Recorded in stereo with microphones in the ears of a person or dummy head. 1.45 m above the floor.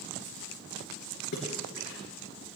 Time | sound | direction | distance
1.3 | a splash | 50° left (ahead or behind) | 4 m